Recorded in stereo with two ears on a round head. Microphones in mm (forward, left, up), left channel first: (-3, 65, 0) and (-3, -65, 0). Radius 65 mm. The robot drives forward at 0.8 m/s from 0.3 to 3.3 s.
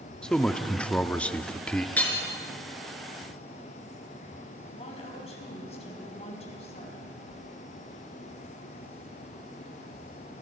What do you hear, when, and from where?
0.2 s a man speaking: 5° left (ahead or behind), 1.0 m
2.0 s hammering: 10° left (ahead or behind), 4 m
4.7 s a woman speaking: 45° left (ahead or behind), 6 m
7.3 s a whoosh: 75° left (ahead or behind), 3.5 m